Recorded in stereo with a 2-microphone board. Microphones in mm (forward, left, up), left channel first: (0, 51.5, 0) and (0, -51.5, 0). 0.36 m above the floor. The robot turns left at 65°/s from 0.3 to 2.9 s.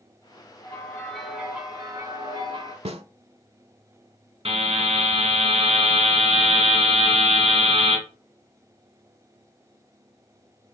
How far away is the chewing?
I don't hear chewing.